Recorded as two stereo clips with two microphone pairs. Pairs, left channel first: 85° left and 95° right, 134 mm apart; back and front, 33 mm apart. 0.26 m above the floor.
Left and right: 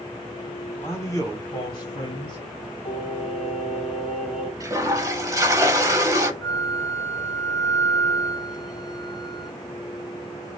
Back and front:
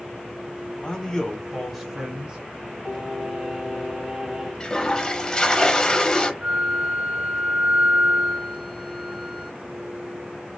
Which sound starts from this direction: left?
Singing, at 2.9 s.